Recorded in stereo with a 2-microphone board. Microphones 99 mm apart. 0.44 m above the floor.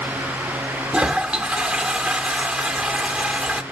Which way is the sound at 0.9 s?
15° right (ahead or behind).